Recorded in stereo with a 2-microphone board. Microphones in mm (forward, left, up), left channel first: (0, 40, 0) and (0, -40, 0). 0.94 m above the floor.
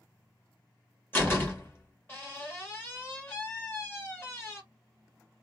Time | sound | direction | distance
1.1 | a door slam | 25° left (ahead or behind) | 1.3 m